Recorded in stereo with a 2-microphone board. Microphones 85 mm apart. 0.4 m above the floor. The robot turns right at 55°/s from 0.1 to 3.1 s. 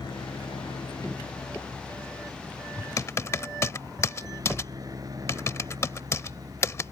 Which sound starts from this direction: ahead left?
A helicopter, at 0.0 s.